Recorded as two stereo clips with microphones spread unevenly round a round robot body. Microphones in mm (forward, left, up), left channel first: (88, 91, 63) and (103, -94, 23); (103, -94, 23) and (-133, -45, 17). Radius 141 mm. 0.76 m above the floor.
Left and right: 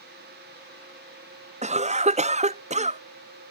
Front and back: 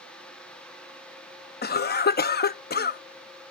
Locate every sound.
1.6 s a cough: 55° right